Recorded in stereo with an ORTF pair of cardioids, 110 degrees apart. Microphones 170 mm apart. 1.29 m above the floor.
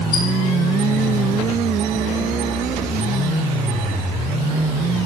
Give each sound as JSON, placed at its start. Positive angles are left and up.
{"t": 0.1, "sound": "a squeak", "azimuth_deg": 65, "distance_m": 1.4}